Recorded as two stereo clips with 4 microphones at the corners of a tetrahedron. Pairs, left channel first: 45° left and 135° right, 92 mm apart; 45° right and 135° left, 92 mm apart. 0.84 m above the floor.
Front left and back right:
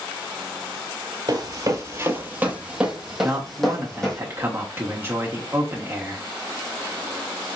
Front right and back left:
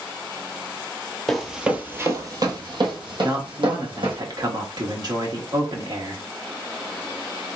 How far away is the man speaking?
About 1.4 m.